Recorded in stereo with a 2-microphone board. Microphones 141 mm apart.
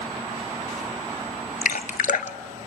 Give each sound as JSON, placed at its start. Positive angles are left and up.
{"t": 1.6, "sound": "dripping", "side_deg": 75, "distance_m": 0.7}